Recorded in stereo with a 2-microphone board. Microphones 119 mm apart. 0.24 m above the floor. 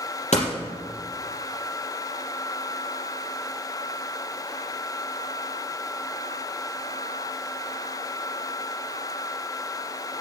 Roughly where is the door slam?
Left.